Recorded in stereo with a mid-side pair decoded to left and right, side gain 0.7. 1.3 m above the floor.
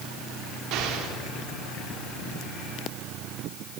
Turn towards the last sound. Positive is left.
turn(degrees=-55)